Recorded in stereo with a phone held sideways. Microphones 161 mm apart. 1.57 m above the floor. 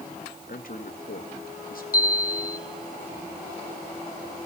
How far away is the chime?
About 0.9 m.